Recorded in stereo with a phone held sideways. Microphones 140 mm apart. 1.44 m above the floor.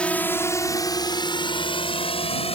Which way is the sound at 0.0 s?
10° left (ahead or behind).